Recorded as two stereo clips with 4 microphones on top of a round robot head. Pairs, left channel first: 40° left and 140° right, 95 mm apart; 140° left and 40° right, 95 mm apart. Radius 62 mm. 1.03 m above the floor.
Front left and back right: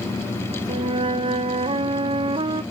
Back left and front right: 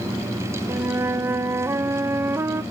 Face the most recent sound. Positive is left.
turn(degrees=-105)